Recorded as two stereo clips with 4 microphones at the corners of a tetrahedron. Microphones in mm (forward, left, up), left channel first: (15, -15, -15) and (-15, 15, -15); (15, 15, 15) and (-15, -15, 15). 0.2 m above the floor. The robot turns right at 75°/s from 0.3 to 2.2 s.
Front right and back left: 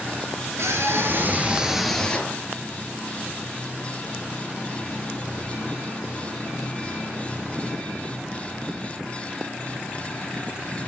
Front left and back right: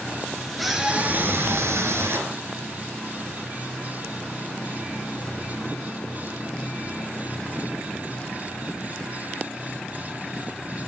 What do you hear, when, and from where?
0.6 s a scream: 130° left, 3.5 m; by 2.4 s 110° right, 3.5 m